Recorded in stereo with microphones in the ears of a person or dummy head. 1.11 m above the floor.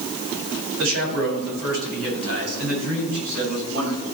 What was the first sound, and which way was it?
A man speaking, 75° right (ahead or behind).